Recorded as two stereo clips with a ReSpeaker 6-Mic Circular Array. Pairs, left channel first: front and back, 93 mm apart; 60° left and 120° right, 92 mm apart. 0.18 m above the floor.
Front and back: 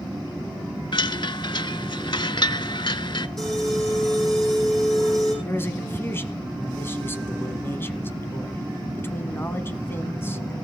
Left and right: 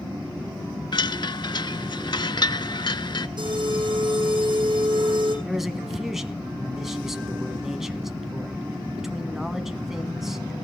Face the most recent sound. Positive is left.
turn(degrees=-35)